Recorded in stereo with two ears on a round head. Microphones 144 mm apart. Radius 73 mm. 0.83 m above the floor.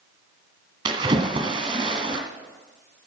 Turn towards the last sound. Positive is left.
turn(degrees=-30)  # may be behind; listen again after turning